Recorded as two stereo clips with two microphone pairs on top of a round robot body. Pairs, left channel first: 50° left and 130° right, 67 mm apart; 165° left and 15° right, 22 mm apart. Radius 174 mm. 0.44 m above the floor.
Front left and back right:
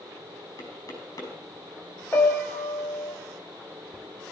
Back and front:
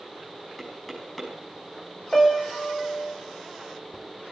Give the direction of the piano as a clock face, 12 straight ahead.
8 o'clock.